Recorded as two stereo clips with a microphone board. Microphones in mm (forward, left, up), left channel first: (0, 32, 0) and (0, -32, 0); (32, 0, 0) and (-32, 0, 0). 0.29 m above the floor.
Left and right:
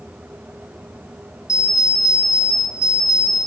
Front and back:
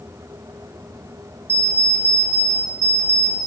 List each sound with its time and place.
1.5 s an alarm clock: 125° left, 2.5 m